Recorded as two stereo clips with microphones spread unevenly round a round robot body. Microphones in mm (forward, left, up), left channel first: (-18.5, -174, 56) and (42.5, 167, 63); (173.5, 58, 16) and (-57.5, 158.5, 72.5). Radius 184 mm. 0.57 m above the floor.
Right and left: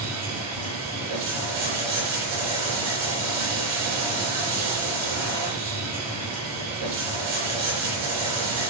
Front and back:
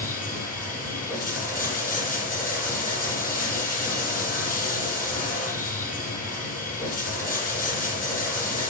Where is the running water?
35° left, 8 m.